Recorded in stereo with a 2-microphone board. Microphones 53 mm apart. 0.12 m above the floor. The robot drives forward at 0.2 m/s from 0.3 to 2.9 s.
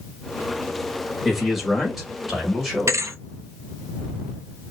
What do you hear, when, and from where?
1.2 s a man speaking: 5° right (ahead or behind), 1.7 m
2.9 s a thud: 65° right (ahead or behind), 0.6 m